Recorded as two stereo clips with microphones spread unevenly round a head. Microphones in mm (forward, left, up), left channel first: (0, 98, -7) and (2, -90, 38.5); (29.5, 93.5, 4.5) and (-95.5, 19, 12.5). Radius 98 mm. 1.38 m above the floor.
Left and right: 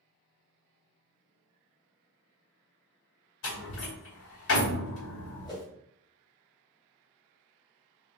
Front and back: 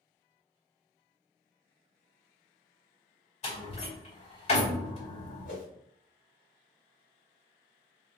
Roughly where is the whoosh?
Ahead.